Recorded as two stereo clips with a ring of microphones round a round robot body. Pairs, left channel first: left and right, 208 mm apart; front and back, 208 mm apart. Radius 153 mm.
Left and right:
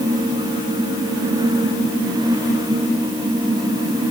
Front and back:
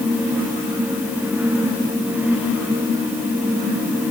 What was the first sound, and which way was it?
Only background noise.